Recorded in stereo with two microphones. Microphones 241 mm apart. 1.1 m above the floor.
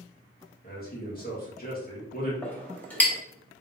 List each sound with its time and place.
0.6 s a man speaking: 40° left (ahead or behind), 1.8 m
2.4 s a clink: 5° left (ahead or behind), 0.9 m